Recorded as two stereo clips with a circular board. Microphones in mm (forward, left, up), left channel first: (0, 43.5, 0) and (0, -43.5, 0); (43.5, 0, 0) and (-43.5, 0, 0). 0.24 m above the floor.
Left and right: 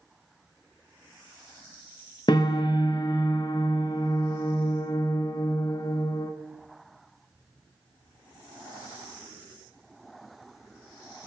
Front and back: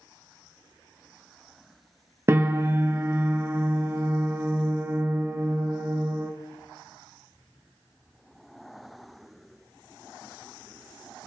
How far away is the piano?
About 0.6 m.